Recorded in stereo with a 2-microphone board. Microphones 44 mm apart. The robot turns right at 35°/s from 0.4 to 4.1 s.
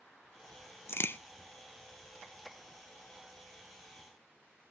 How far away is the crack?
About 0.6 m.